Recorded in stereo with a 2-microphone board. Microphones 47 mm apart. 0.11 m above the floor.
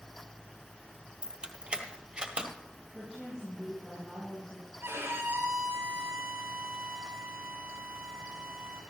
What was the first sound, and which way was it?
Keys jangling, 20° right (ahead or behind).